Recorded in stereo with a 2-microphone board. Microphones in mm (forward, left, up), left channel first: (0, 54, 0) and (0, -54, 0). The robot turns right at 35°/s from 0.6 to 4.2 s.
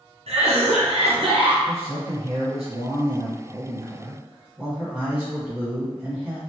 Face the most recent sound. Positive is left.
turn(degrees=-15)